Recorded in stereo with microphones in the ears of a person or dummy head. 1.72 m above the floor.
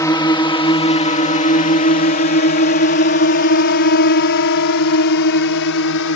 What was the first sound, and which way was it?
A drone, 15° left (ahead or behind).